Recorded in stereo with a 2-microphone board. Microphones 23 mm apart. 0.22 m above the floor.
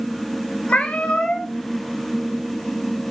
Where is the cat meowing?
70° left (ahead or behind), 0.9 m.